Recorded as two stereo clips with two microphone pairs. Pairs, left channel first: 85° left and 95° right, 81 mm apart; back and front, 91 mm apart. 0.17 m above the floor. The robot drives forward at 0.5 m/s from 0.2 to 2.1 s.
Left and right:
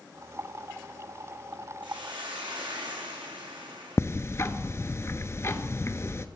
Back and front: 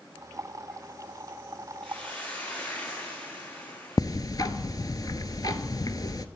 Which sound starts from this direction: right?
A hiss, at 1.8 s.